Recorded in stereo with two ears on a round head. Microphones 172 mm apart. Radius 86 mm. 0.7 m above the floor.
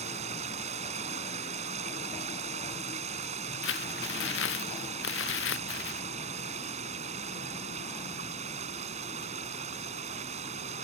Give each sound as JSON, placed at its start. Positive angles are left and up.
{"t": 0.0, "sound": "running water", "side_deg": -35}
{"t": 3.6, "sound": "crumpling", "side_deg": 75}